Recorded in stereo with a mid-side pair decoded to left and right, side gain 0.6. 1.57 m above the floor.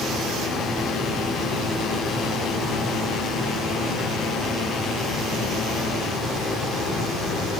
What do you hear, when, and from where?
0.0 s a fan: 40° left, 1.0 m